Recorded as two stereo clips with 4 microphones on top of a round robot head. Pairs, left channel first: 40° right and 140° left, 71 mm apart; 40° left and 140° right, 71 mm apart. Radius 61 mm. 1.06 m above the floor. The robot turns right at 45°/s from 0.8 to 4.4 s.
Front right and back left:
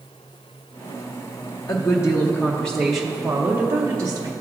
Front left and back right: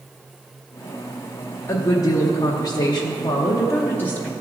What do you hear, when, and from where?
1.7 s a woman speaking: 5° right, 0.8 m; by 4.3 s 110° left, 0.8 m